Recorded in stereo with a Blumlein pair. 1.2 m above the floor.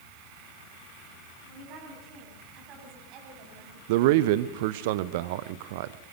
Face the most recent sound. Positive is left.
turn(degrees=-50)